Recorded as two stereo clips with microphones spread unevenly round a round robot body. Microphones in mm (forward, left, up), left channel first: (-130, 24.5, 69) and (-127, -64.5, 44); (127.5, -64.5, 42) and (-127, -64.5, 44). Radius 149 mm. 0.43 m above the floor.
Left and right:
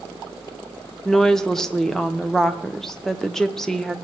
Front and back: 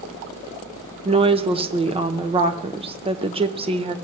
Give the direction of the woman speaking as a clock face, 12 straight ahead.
5 o'clock.